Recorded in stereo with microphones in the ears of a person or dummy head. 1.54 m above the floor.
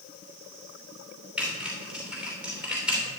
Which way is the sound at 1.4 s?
5° right (ahead or behind).